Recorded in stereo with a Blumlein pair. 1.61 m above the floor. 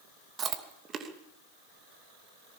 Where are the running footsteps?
No running footsteps in this recording.